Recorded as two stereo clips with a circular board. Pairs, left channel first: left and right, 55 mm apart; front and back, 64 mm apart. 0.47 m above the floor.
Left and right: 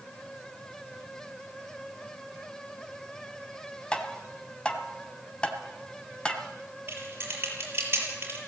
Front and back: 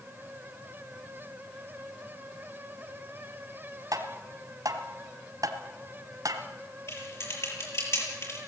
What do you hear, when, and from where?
3.9 s tapping: 160° left, 1.9 m
6.9 s typing on a keyboard: 40° right, 7 m